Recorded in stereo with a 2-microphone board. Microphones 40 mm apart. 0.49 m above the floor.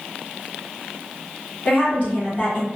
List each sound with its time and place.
1.6 s a woman speaking: 35° left (ahead or behind), 1.2 m